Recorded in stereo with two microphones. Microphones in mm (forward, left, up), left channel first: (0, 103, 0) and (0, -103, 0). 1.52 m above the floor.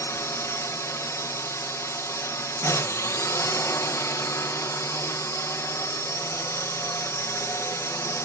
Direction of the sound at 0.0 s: 15° left (ahead or behind).